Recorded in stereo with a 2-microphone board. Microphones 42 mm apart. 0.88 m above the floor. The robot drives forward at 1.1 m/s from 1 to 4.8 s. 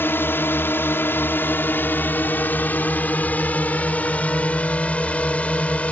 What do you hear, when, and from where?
0.0 s a drone: 60° left (ahead or behind); by 5.9 s 30° left (ahead or behind)